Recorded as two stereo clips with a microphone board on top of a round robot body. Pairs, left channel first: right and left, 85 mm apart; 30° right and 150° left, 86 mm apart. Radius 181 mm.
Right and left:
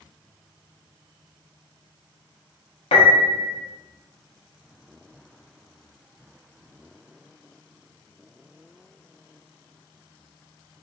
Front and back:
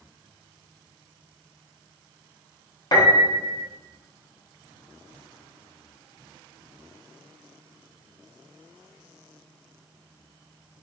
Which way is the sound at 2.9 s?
80° right.